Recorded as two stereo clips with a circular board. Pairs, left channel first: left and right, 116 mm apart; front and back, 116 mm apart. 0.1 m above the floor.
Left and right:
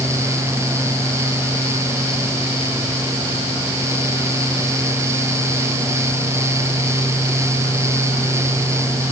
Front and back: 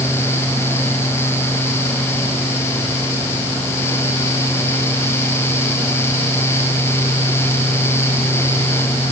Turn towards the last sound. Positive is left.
No sound to turn to.